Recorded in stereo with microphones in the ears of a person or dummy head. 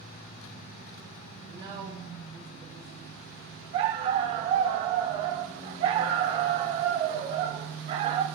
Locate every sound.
1.5 s a woman speaking: 25° right (ahead or behind), 4 m
3.7 s a dog barking: 25° right (ahead or behind), 1.1 m